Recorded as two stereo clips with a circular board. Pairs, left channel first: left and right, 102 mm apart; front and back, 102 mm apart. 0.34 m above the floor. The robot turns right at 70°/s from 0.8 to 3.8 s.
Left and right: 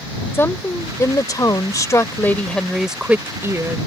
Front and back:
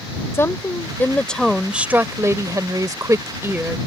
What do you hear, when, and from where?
0.3 s a woman speaking: 40° left; by 3.8 s 110° right